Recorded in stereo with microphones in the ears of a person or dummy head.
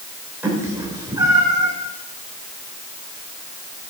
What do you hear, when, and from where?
0.4 s a cat meowing: 5° right (ahead or behind), 3.5 m; by 1.7 s 20° right (ahead or behind), 3.5 m